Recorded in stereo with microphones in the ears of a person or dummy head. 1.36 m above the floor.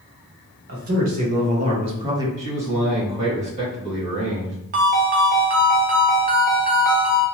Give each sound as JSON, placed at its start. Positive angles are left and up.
{"t": 0.7, "sound": "a man speaking", "side_deg": -50, "distance_m": 1.4}
{"t": 2.4, "sound": "a man speaking", "side_deg": -40, "distance_m": 1.8}
{"t": 4.7, "sound": "a ringtone", "side_deg": -40, "distance_m": 0.8}